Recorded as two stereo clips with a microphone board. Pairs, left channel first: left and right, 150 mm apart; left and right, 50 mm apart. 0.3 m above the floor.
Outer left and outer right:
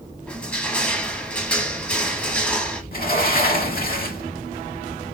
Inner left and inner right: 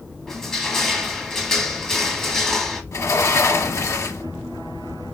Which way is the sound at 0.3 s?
10° left (ahead or behind).